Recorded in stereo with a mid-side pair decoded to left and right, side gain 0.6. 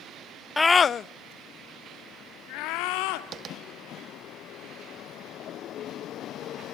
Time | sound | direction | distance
0.6 | a scream | 10° left | 0.5 m
3.3 | tapping | 45° right | 2 m